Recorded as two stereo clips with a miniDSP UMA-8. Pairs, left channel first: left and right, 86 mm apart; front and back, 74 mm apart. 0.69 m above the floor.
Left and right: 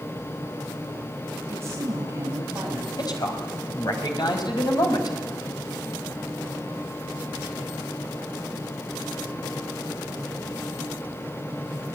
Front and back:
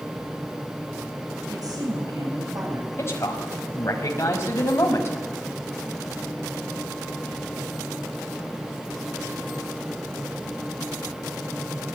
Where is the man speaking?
55° left, 5 m.